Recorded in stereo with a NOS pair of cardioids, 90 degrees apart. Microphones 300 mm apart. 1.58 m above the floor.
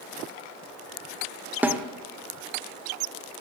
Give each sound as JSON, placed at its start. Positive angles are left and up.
{"t": 1.6, "sound": "a snare drum", "azimuth_deg": -5, "distance_m": 0.9}